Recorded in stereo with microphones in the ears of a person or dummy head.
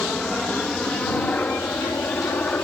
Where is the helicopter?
5° left (ahead or behind).